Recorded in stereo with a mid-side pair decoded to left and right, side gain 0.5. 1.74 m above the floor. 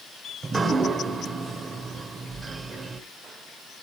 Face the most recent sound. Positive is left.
turn(degrees=-35)